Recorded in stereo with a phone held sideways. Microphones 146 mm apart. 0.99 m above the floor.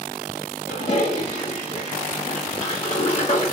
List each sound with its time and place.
0.7 s a toilet flushing: 40° left (ahead or behind), 1.6 m